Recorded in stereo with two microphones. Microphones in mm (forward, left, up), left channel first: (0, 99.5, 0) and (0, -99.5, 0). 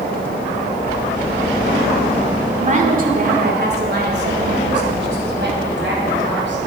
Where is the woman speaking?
35° right (ahead or behind), 1.4 m; by 6.6 s 70° right (ahead or behind), 4 m.